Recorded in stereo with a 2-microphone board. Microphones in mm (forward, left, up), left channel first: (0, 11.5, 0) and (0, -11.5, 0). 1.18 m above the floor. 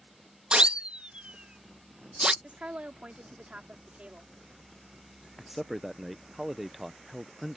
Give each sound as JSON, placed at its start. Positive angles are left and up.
{"t": 0.5, "sound": "a siren", "side_deg": -55}
{"t": 2.4, "sound": "a woman speaking", "side_deg": -70}
{"t": 5.4, "sound": "a man speaking", "side_deg": -10}